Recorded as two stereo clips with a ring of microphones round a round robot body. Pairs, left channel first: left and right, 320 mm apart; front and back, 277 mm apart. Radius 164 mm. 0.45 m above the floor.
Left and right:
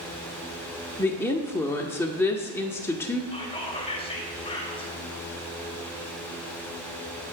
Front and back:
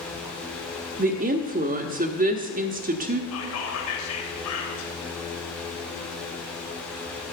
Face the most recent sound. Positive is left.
turn(degrees=20)